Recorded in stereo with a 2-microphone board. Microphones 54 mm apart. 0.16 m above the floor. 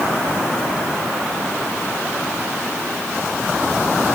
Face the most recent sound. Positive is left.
No sound to turn to.